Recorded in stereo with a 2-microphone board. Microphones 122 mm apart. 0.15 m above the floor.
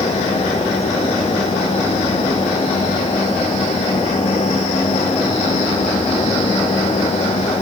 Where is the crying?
No crying in this recording.